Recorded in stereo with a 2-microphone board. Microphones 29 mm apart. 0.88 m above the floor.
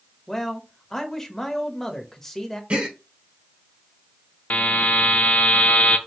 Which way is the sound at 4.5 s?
60° left (ahead or behind).